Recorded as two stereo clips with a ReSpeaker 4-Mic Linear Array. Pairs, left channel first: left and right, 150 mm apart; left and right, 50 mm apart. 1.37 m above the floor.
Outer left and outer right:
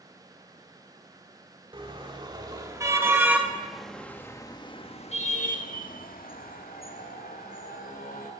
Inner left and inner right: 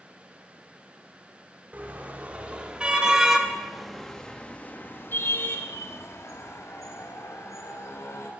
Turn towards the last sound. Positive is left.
turn(degrees=75)  # may be behind; listen again after turning